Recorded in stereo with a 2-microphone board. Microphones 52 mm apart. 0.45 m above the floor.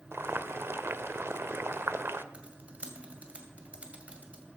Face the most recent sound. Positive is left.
turn(degrees=-25)  # may be behind; listen again after turning